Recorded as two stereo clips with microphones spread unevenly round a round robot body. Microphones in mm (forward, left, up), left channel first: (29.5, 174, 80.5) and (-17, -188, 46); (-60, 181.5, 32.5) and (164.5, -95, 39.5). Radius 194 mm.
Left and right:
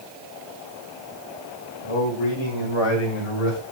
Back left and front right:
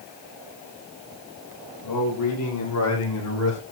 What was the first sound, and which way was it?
A man speaking, 95° left.